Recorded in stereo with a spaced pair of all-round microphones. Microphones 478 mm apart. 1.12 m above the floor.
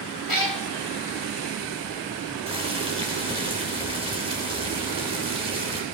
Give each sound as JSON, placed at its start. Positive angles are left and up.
{"t": 0.3, "sound": "a cat meowing", "side_deg": 45, "distance_m": 1.7}
{"t": 2.5, "sound": "boiling", "side_deg": -10, "distance_m": 3.0}